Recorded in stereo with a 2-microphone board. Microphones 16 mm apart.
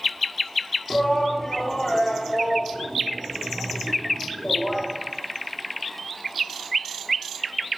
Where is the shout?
40° left (ahead or behind), 1.4 m.